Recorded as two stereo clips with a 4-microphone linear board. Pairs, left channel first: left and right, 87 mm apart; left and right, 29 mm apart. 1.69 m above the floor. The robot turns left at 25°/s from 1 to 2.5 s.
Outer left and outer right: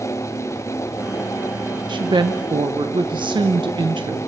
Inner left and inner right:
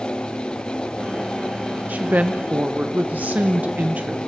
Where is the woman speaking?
55° right (ahead or behind), 1.0 m; by 4.2 s 60° right (ahead or behind), 1.0 m.